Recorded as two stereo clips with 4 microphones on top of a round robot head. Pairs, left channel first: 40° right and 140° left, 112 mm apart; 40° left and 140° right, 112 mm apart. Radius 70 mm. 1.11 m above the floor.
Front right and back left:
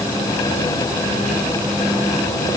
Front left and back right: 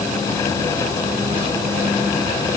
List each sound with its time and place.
Only background noise.